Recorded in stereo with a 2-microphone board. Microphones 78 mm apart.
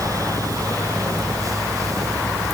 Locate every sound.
Only background noise.